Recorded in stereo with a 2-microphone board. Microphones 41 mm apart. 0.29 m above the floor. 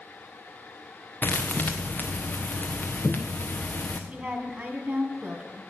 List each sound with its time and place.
1.2 s a thud: 50° left (ahead or behind), 1.4 m
4.1 s a woman speaking: 40° right (ahead or behind), 2 m